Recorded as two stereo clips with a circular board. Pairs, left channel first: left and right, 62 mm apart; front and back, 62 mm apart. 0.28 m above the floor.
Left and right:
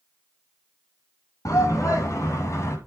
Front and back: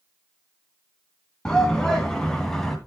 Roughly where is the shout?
Left.